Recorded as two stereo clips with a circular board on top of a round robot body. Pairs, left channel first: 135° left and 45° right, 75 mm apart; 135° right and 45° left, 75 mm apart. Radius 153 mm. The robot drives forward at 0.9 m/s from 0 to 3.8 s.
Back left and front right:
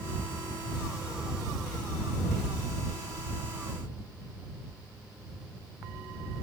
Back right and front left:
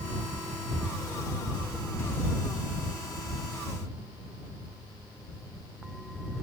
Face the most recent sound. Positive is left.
No sound to turn to.